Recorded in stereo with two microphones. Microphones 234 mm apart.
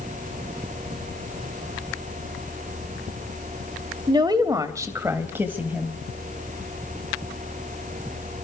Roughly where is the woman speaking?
Centre.